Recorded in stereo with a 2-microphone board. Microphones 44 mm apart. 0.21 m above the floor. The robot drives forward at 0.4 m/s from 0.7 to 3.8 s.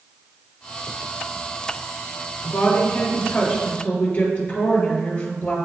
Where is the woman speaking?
45° left (ahead or behind), 3.5 m; by 5.5 s 40° left (ahead or behind), 4 m.